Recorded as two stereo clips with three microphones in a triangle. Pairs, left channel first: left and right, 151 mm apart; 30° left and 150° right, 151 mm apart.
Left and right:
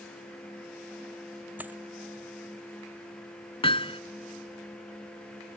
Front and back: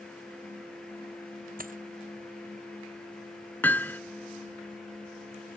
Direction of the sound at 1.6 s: 170° right.